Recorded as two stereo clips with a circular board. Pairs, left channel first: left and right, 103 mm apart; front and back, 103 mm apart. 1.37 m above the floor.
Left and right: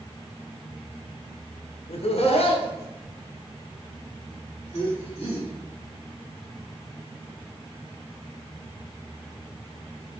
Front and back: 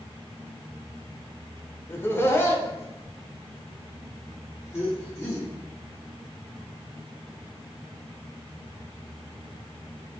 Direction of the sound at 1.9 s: 70° left.